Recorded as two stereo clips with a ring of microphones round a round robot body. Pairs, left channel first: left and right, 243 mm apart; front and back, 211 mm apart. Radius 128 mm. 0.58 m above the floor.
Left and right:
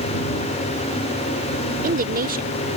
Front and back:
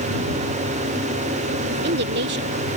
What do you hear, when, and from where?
1.7 s a woman speaking: 145° right